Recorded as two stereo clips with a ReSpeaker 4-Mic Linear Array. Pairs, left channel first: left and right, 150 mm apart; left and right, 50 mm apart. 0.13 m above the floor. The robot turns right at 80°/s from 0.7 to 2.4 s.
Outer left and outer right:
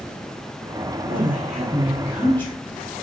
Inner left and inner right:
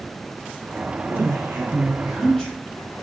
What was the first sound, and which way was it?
A woman speaking, 95° right.